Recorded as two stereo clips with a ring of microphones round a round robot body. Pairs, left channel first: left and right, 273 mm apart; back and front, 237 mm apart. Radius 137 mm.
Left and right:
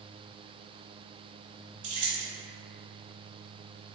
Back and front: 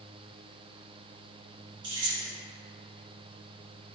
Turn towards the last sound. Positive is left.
turn(degrees=-70)